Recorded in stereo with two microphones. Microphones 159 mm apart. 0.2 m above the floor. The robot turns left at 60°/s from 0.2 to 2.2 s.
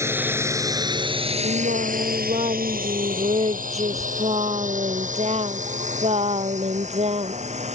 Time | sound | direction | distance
0.0 | a drone | 15° right (ahead or behind) | ?
1.4 | singing | 90° right | ?